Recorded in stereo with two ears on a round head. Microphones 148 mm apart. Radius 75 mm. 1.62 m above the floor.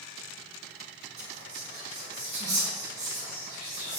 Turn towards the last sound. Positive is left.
turn(degrees=-40)  # may be behind; listen again after turning